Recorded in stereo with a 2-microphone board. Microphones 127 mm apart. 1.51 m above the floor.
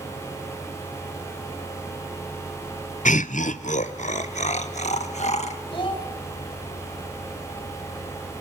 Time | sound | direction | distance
3.0 | laughter | 85° left | 0.5 m
5.7 | a child speaking | 40° left (ahead or behind) | 3.5 m